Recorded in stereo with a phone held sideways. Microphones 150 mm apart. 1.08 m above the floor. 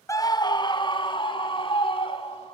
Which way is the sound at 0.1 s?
20° left (ahead or behind).